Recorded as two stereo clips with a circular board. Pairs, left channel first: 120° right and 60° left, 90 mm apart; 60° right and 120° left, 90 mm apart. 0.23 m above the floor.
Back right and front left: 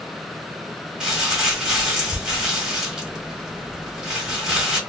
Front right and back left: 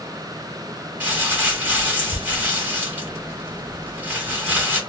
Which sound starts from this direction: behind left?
Crumpling, at 1.0 s.